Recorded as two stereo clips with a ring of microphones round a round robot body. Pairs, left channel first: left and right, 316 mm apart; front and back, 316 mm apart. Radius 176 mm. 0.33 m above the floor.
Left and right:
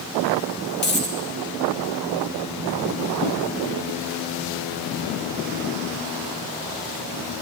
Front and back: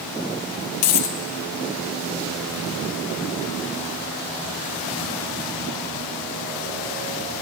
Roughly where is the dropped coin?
Ahead left.